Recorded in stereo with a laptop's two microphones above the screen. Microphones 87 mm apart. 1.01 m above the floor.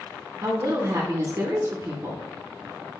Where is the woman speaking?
40° right (ahead or behind), 0.8 m.